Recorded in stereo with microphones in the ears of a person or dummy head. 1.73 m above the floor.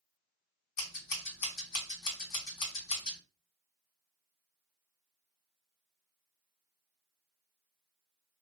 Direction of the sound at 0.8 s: 50° left (ahead or behind).